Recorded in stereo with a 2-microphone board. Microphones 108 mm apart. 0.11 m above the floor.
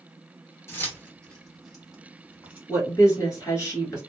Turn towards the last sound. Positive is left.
turn(degrees=30)  # may be behind; listen again after turning